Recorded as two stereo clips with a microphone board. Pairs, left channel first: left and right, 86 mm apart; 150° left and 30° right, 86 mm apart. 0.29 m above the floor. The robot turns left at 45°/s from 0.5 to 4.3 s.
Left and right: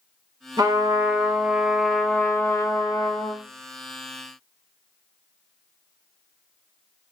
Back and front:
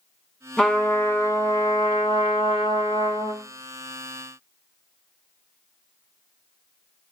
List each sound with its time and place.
0.6 s a trumpet: 125° right, 0.7 m; by 3.4 s 105° left, 0.7 m